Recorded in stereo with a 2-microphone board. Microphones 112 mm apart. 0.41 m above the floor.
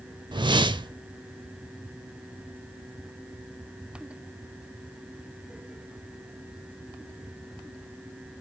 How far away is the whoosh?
About 0.7 m.